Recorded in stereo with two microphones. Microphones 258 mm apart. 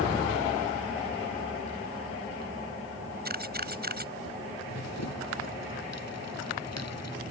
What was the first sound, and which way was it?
A camera shutter, 40° right (ahead or behind).